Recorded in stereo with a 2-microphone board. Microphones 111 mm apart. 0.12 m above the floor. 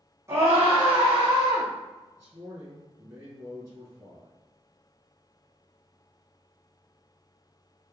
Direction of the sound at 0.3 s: 25° right (ahead or behind).